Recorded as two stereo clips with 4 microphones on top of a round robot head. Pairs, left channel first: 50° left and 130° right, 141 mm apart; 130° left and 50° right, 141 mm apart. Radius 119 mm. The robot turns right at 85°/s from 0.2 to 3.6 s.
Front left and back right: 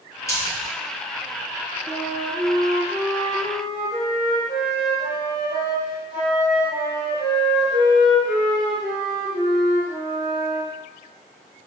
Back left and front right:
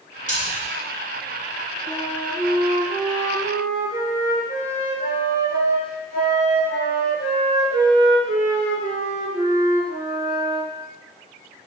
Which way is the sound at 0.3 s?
115° left.